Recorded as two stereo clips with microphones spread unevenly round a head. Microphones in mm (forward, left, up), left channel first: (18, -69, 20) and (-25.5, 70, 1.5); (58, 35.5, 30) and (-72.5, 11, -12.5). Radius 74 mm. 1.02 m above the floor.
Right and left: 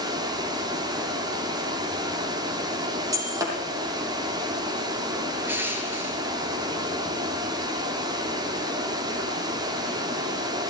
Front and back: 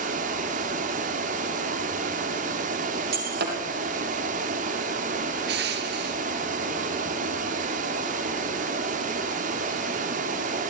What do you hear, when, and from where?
0.0 s running water: 170° left, 2.5 m
3.1 s breaking glass: straight behind, 4.5 m
5.5 s crushing: 175° right, 3 m